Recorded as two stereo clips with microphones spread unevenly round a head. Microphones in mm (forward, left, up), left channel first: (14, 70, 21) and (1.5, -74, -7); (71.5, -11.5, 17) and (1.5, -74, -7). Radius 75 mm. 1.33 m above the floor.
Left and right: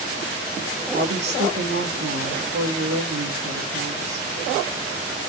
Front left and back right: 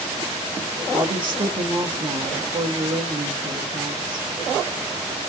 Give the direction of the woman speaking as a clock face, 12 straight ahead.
3 o'clock.